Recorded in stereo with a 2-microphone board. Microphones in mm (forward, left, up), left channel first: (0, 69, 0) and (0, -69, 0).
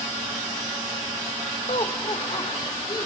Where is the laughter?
45° left (ahead or behind), 1.3 m; by 3.1 s 30° left (ahead or behind), 2.5 m.